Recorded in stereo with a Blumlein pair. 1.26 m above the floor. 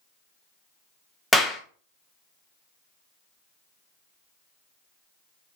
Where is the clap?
5° left, 0.8 m.